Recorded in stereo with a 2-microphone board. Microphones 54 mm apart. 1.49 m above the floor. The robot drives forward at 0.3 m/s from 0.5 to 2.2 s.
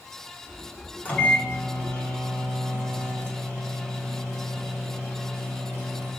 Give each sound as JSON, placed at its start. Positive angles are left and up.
{"t": 1.1, "sound": "a microwave", "side_deg": 30, "distance_m": 1.2}